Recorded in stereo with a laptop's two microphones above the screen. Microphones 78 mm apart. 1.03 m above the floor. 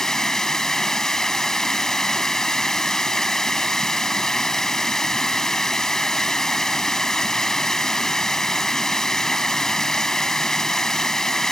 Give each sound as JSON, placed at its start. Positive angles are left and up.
{"t": 0.0, "sound": "running water", "side_deg": 5}